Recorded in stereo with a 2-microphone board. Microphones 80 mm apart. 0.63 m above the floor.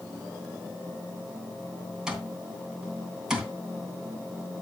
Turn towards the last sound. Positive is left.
turn(degrees=-10)  # may be behind; listen again after turning